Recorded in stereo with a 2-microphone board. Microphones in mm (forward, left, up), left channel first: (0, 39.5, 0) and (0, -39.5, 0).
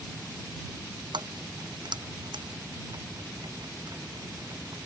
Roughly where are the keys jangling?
Right.